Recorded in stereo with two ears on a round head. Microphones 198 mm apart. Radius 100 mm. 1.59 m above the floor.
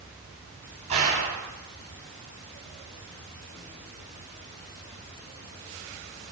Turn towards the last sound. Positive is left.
turn(degrees=-35)  # may be behind; listen again after turning